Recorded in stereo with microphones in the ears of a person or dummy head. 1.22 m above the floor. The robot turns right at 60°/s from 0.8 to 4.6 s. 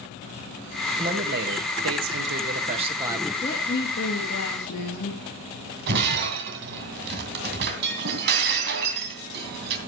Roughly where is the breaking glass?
Right.